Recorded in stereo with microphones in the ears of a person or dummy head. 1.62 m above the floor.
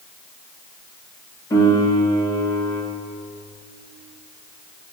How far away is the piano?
About 4 m.